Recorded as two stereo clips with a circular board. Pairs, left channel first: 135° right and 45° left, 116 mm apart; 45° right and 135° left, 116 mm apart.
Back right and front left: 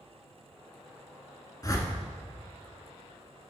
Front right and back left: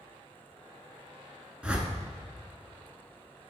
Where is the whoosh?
155° right, 0.9 m.